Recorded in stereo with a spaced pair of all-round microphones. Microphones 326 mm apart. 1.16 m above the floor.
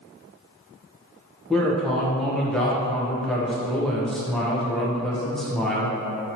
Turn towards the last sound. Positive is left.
turn(degrees=0)  # may be behind; listen again after turning